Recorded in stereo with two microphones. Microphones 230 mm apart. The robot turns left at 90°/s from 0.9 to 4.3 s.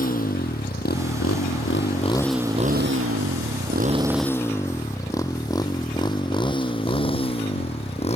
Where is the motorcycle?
35° left (ahead or behind); by 8.2 s 25° left (ahead or behind).